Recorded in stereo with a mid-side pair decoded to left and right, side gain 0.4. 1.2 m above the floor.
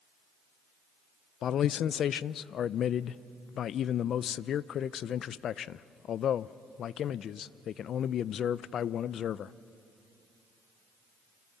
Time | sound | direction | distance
1.4 | a man speaking | 70° left | 0.6 m